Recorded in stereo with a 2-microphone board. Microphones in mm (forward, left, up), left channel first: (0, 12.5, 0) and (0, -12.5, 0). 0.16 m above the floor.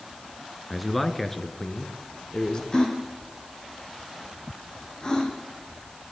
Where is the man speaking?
5° right (ahead or behind), 2 m; by 2.6 s 35° left (ahead or behind), 3.5 m.